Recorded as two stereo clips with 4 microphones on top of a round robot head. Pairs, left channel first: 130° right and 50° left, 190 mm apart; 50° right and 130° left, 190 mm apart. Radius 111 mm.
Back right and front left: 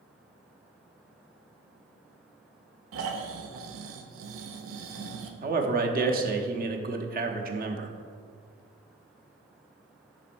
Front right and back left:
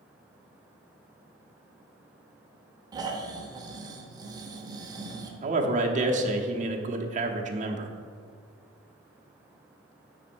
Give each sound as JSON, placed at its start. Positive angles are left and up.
{"t": 2.9, "sound": "snoring", "azimuth_deg": 55, "distance_m": 0.8}
{"t": 5.4, "sound": "a man speaking", "azimuth_deg": 85, "distance_m": 1.0}